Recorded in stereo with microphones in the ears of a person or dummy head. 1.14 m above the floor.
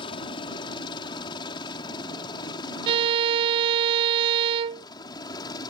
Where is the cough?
No cough in this recording.